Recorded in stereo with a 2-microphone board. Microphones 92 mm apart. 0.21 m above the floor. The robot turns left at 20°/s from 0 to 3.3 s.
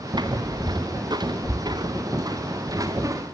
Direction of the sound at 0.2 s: 55° right (ahead or behind).